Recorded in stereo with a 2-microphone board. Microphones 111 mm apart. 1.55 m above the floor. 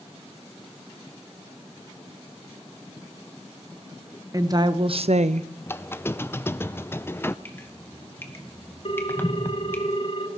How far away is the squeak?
About 0.5 m.